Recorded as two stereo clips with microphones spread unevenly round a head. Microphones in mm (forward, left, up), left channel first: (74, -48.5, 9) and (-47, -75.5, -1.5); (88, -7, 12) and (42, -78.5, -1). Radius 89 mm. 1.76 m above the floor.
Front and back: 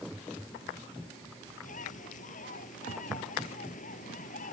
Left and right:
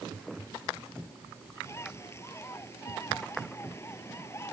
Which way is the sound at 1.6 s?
Straight ahead.